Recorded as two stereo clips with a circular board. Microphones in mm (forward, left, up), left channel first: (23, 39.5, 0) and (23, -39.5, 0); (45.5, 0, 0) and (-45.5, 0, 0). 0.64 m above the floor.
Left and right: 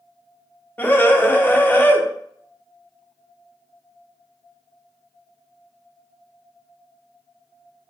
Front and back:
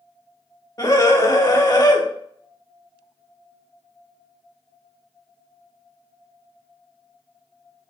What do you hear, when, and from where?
0.8 s a scream: 35° left, 1.8 m